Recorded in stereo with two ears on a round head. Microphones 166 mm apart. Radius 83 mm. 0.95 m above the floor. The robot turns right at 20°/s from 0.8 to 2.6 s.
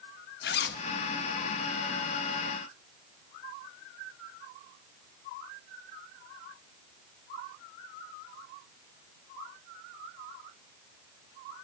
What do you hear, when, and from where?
0.4 s a zipper: 65° left (ahead or behind), 1.2 m